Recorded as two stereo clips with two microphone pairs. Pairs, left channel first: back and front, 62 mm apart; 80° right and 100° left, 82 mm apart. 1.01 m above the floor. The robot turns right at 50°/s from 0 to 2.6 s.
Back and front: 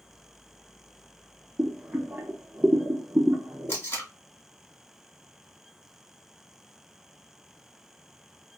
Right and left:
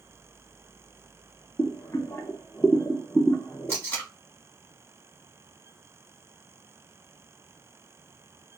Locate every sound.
1.6 s boiling: 65° right, 0.7 m; by 3.8 s 15° right, 0.7 m
3.7 s tape being pulled: 135° right, 1.5 m